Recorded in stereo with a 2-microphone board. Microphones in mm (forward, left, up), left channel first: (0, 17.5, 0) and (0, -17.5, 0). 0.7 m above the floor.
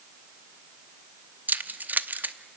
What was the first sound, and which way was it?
Keys jangling, 55° right (ahead or behind).